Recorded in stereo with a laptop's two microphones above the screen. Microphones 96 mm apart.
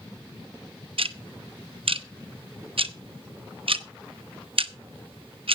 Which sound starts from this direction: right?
Ticking, at 1.0 s.